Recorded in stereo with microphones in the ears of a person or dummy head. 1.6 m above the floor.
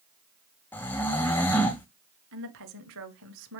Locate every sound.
0.7 s snoring: 5° left (ahead or behind), 0.6 m
2.3 s a woman speaking: 75° right (ahead or behind), 0.7 m